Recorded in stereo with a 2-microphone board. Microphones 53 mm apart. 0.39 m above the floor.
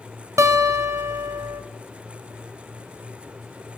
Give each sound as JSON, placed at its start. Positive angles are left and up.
{"t": 0.4, "sound": "a guitar", "side_deg": -60, "distance_m": 0.9}